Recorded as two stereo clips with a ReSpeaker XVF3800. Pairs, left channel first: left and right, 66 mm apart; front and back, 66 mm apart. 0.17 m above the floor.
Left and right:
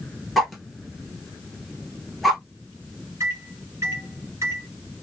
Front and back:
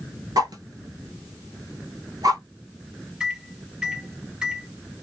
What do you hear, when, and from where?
0.4 s a whoosh: straight behind, 0.9 m
3.2 s a microwave: 110° right, 1.2 m